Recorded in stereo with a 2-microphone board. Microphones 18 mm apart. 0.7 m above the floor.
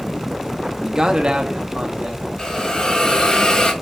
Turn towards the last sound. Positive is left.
turn(degrees=55)  # may be behind; listen again after turning